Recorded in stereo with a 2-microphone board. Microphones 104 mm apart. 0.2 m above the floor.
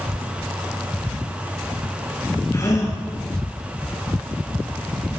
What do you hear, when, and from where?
2.5 s a gasp: 30° left (ahead or behind), 3.5 m